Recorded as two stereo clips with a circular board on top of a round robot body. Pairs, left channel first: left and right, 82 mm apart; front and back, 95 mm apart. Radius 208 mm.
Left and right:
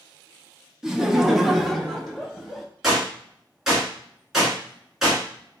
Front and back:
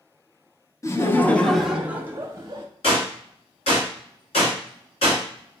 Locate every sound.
0.8 s laughter: 10° right, 0.9 m; by 2.7 s 170° left, 0.9 m
2.8 s a gunshot: 5° right, 1.4 m